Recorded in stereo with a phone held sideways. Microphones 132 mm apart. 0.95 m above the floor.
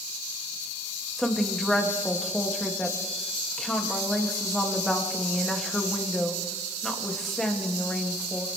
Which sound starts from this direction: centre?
A woman speaking, at 1.2 s.